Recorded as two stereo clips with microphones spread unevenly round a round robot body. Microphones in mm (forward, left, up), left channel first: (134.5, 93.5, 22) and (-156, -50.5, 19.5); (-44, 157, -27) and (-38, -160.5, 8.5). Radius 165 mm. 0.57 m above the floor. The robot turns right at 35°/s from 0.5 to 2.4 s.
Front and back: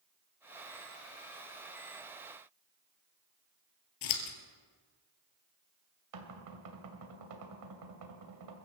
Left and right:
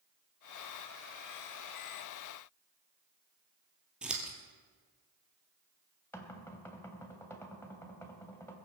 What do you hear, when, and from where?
4.0 s scissors: 5° right, 2 m
6.1 s knocking: 175° left, 2.5 m